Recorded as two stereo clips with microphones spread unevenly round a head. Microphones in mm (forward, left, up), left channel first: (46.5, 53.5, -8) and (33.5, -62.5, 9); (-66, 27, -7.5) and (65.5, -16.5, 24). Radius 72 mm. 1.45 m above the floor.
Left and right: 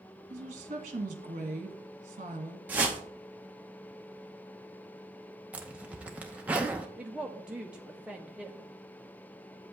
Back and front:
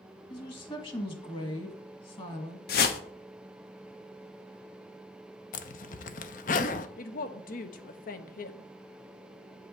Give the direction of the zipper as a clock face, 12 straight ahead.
6 o'clock.